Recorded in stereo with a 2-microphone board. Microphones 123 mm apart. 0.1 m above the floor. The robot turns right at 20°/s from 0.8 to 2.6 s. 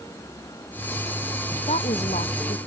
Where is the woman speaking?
60° left (ahead or behind); by 2.7 s 70° left (ahead or behind).